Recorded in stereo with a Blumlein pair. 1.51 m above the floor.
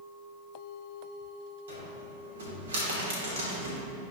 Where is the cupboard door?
65° right, 2.5 m.